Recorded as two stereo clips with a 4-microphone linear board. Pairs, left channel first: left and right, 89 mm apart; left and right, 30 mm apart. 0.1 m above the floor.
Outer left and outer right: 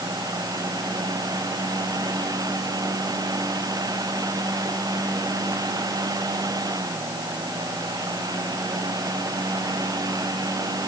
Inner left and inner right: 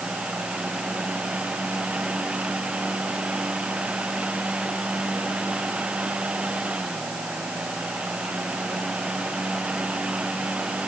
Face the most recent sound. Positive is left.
No sound to turn to.